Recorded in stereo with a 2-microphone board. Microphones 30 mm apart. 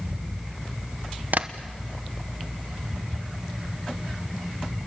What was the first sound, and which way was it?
Tapping, 65° right (ahead or behind).